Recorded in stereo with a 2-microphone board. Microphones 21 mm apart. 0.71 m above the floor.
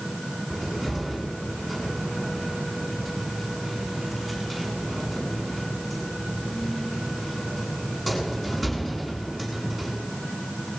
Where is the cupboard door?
Centre (ahead or behind), 8 m.